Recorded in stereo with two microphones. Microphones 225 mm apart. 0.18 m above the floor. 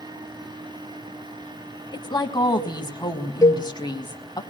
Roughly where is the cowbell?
Centre.